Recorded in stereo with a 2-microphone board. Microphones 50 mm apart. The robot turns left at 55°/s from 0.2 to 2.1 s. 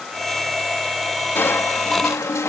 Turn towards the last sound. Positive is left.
turn(degrees=90)